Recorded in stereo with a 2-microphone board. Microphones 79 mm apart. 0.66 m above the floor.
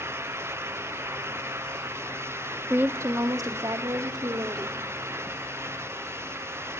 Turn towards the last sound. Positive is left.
turn(degrees=-65)  # may be behind; listen again after turning